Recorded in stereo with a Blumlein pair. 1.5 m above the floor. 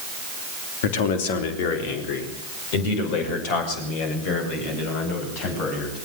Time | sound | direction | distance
0.8 | a man speaking | 55° left | 3 m